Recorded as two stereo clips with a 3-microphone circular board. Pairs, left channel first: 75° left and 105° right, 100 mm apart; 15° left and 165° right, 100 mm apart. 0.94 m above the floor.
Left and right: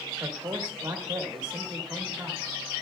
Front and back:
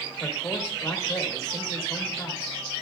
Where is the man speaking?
40° right, 1.8 m.